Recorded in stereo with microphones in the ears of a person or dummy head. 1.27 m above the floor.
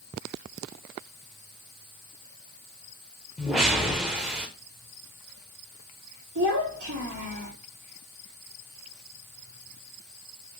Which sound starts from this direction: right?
A child speaking, at 6.3 s.